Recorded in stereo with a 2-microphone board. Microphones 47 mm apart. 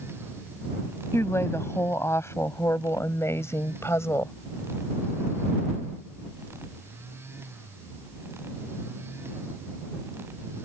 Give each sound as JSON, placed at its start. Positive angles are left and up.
{"t": 1.1, "sound": "a woman speaking", "side_deg": 70}